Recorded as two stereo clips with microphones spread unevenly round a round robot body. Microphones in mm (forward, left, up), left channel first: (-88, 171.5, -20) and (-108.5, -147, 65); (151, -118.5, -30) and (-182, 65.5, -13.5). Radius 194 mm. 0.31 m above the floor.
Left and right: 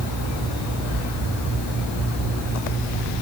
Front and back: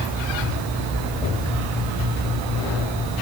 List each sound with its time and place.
Only background noise.